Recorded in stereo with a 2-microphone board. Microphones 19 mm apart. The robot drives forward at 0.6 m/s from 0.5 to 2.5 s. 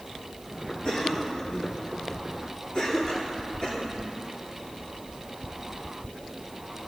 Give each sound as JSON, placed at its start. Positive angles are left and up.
{"t": 0.8, "sound": "a cough", "side_deg": 60, "distance_m": 4.0}